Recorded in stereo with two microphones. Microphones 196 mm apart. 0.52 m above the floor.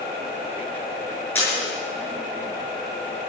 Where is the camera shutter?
10° left (ahead or behind), 7 m.